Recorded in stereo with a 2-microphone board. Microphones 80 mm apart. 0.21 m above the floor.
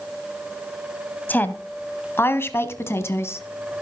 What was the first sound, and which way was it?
A woman speaking, 20° left (ahead or behind).